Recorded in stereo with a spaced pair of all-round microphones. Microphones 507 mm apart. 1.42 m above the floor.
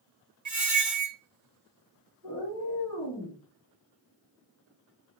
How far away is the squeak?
About 0.8 m.